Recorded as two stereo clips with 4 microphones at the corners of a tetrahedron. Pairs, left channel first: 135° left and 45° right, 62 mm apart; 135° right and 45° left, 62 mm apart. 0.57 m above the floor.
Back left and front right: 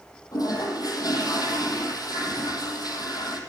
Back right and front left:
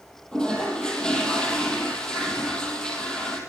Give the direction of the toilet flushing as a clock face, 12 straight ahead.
7 o'clock.